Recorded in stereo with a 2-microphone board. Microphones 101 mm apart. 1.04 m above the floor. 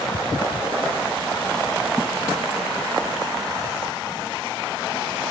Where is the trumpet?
I don't hear a trumpet.